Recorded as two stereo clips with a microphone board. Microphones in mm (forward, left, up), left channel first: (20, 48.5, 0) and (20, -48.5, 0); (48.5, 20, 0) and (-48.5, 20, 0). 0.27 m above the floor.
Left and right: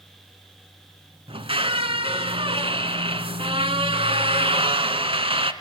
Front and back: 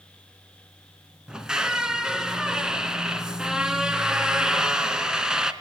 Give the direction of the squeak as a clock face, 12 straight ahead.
3 o'clock.